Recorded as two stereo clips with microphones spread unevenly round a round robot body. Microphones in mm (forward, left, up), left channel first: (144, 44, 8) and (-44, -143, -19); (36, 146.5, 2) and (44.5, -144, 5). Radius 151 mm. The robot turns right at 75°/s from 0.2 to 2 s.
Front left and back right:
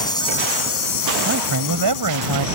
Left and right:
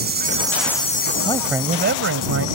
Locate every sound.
0.0 s an insect: 30° right; by 2.6 s 105° left
1.2 s a man speaking: 165° left; by 2.5 s 140° right